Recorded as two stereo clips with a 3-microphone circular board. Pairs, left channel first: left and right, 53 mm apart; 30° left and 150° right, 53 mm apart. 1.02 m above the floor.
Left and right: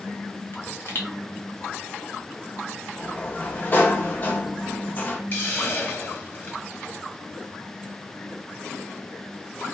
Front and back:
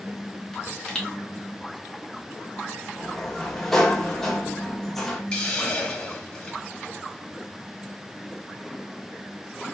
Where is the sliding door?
110° left, 0.6 m.